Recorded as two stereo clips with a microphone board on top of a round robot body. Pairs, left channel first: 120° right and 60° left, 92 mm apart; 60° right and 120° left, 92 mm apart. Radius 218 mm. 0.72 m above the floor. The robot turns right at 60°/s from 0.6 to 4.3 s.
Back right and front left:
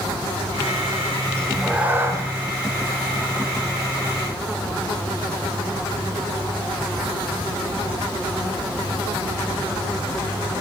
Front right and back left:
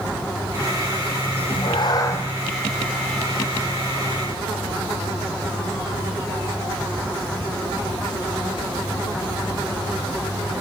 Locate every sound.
1.4 s a cat meowing: 45° right, 1.6 m; by 2.2 s 10° left, 1.6 m